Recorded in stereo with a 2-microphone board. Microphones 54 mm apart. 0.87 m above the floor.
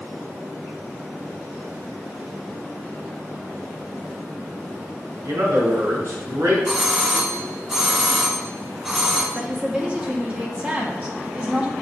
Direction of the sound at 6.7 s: 5° right (ahead or behind).